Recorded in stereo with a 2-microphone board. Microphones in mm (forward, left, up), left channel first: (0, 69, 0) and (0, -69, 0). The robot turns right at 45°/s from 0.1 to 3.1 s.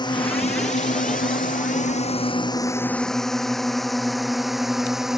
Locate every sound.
0.0 s a drone: 35° left (ahead or behind); by 5.2 s 5° right (ahead or behind)